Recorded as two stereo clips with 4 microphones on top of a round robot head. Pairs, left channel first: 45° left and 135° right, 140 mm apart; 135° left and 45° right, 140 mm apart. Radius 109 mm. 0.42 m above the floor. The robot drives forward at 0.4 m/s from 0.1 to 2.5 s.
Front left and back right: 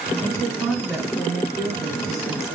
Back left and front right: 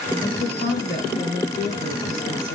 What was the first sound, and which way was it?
A woman speaking, 135° left.